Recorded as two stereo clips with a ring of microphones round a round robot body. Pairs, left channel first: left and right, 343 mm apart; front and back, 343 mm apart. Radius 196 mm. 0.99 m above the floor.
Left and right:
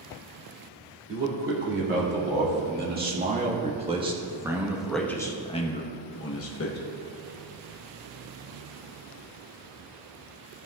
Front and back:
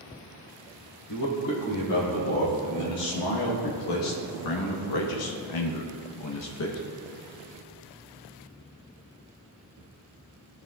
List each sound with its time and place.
1.1 s a man speaking: 35° right, 2.5 m; by 6.8 s 50° left, 1.1 m